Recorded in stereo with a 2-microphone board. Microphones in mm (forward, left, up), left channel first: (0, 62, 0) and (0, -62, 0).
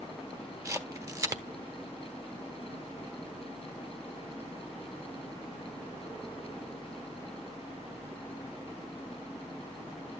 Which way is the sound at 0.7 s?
30° right (ahead or behind).